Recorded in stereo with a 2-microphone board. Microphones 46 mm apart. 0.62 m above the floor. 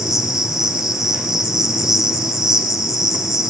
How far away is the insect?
About 1.6 m.